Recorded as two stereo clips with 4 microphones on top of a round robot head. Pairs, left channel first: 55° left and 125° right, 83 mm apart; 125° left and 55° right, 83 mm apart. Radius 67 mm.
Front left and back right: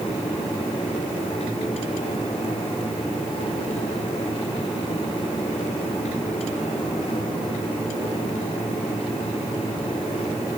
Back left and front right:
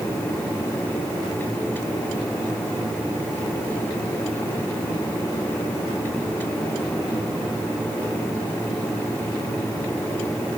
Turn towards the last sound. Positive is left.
No sound to turn to.